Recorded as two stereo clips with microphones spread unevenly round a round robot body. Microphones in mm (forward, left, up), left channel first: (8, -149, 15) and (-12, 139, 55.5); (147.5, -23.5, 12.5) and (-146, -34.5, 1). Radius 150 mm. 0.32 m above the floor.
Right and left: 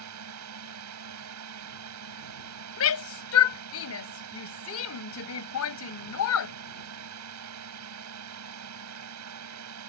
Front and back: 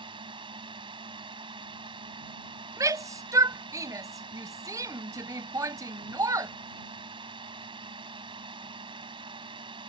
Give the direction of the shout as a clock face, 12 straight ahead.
3 o'clock.